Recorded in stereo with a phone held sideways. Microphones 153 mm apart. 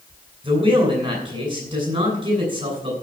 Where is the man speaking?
35° right (ahead or behind), 8.5 m.